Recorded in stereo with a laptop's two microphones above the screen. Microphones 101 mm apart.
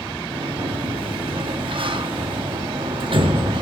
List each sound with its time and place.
0.3 s a sliding door: 55° right (ahead or behind), 0.6 m